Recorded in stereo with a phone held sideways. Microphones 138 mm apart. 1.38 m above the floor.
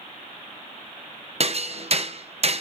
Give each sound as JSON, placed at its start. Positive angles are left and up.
{"t": 1.4, "sound": "hammering", "side_deg": -50, "distance_m": 0.8}